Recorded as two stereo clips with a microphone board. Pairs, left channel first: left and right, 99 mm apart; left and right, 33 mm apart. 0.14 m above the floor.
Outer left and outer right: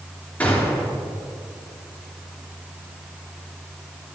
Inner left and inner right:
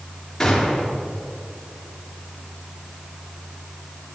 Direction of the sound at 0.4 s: 15° left (ahead or behind).